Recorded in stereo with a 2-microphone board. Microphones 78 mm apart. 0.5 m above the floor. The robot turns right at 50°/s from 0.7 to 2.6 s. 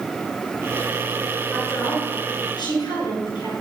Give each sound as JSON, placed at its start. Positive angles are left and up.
{"t": 1.5, "sound": "a woman speaking", "azimuth_deg": 20, "distance_m": 6.0}